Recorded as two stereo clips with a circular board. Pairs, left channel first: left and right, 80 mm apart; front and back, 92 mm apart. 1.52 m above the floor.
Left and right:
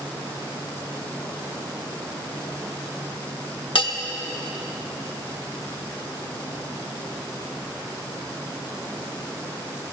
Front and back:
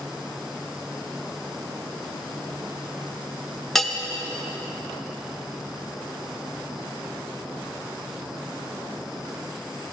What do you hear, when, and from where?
3.8 s a bell: 85° left, 0.8 m